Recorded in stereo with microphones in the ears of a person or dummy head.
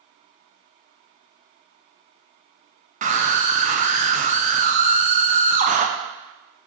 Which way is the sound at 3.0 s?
30° right (ahead or behind).